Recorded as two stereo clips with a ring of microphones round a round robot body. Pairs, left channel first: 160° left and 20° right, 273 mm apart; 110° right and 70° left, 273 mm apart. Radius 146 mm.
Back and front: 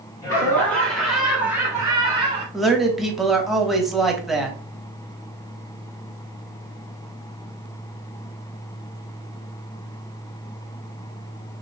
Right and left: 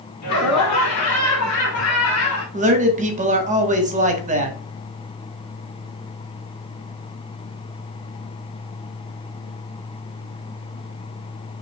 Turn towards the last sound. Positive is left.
turn(degrees=65)